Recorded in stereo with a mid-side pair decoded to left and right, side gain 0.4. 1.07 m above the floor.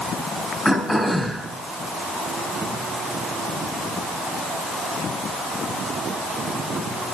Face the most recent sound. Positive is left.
turn(degrees=15)